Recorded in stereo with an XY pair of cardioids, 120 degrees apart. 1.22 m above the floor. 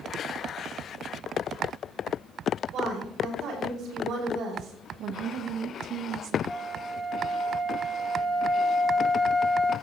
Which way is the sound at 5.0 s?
65° right.